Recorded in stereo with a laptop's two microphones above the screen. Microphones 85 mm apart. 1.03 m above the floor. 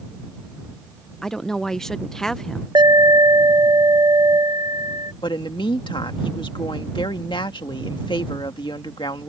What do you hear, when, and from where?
1.2 s a woman speaking: 5° left (ahead or behind)
2.8 s an alarm: 55° right (ahead or behind)
5.2 s a woman speaking: 70° left (ahead or behind)